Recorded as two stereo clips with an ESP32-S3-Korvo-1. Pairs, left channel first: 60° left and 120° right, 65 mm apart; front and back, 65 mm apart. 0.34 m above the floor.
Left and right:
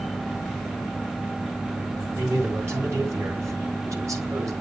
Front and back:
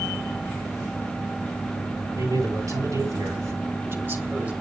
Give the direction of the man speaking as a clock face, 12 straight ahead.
6 o'clock.